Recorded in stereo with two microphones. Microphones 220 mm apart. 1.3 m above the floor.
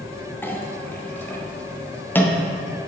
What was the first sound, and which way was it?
A clink, 10° left (ahead or behind).